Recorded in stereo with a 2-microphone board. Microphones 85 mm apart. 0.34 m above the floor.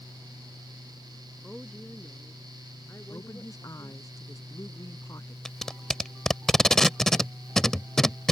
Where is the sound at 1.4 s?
5° left (ahead or behind); by 4.1 s 40° left (ahead or behind).